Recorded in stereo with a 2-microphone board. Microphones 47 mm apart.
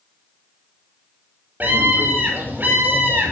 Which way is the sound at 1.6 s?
45° right (ahead or behind).